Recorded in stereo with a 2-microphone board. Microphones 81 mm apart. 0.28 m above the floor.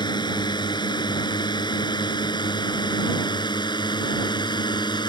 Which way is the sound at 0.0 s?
65° left (ahead or behind).